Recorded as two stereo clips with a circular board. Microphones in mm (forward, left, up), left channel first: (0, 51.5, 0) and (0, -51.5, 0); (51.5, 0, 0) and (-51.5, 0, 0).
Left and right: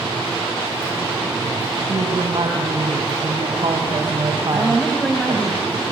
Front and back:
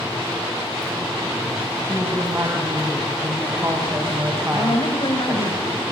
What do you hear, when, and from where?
1.8 s a woman speaking: 120° right, 3 m
4.5 s a woman speaking: straight ahead, 1.8 m